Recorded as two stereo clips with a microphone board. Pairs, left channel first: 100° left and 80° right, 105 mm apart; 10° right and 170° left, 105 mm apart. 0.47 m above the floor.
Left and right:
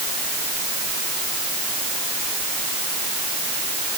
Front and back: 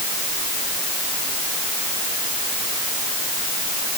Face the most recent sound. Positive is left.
No sound to turn to.